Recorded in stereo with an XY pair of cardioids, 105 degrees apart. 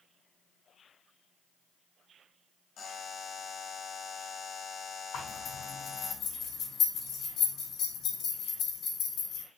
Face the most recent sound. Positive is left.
turn(degrees=70)